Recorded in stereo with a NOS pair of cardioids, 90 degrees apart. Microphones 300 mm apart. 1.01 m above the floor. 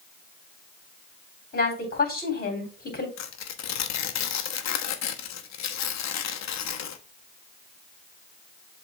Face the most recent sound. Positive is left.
turn(degrees=60)